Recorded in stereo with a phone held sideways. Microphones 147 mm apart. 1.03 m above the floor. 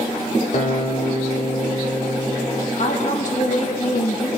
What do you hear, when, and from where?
0.5 s a guitar: 55° left (ahead or behind), 1.1 m
2.8 s a woman speaking: 55° left (ahead or behind), 0.8 m